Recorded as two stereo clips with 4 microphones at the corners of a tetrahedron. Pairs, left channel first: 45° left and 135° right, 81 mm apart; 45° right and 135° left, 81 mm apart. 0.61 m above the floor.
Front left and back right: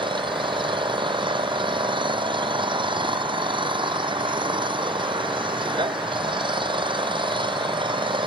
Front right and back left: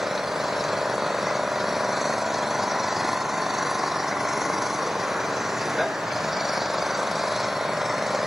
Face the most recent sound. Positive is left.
turn(degrees=-135)